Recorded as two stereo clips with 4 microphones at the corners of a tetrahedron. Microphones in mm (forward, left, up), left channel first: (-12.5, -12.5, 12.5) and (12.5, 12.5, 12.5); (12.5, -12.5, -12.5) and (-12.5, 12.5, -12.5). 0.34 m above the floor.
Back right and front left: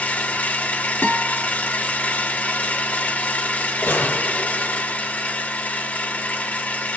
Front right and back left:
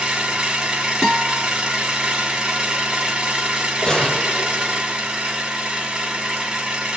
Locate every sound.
0.0 s an engine running: 160° right, 1.8 m
1.0 s a guitar: 130° right, 2 m
3.8 s a gunshot: 115° right, 1.7 m